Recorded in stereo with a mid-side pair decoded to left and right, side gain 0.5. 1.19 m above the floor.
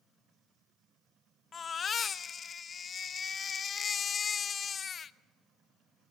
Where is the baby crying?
45° left, 0.6 m.